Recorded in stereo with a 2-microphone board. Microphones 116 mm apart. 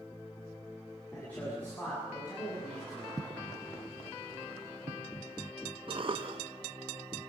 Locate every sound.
1.1 s a man speaking: 10° left (ahead or behind), 8 m
3.2 s footsteps: 35° right (ahead or behind), 1.3 m; by 5.0 s 60° right (ahead or behind), 3.5 m
5.9 s a cough: 50° right (ahead or behind), 0.7 m